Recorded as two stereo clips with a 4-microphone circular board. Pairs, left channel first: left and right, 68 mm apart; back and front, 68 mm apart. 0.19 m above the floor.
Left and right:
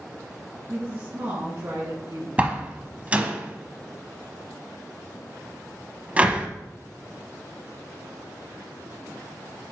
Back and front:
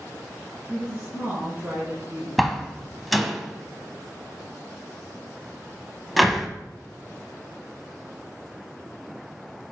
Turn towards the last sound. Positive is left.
turn(degrees=-85)